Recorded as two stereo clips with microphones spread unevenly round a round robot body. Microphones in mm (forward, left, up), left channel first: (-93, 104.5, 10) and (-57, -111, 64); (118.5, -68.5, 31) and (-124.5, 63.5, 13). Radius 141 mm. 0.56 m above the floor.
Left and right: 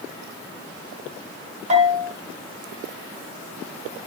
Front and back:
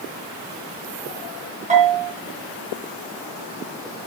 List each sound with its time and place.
1.7 s a bell: 140° right, 5.5 m